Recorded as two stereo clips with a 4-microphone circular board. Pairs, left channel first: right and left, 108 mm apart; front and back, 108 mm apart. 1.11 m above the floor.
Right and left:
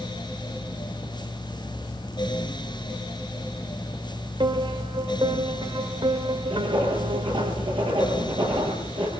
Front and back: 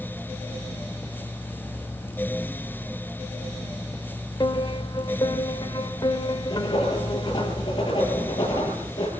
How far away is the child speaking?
I don't hear a child speaking.